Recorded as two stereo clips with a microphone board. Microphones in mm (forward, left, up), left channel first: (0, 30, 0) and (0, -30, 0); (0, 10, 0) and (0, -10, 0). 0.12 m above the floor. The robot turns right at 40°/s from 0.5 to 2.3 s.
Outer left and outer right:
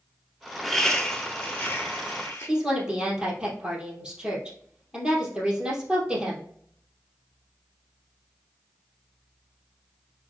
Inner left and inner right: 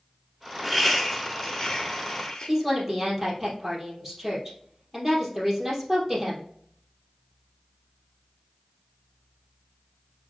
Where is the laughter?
Centre (ahead or behind), 1.2 m; by 2.5 s 25° left (ahead or behind), 1.2 m.